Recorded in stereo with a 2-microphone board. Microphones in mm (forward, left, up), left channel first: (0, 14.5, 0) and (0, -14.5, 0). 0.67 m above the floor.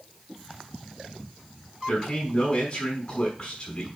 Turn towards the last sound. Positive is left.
turn(degrees=40)  # may be behind; listen again after turning